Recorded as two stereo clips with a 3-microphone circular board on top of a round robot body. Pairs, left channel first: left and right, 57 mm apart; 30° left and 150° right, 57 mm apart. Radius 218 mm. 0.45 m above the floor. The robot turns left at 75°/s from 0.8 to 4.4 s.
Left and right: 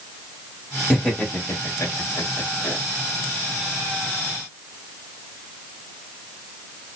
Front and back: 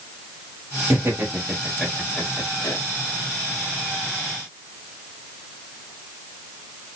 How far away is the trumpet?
No trumpet in this recording.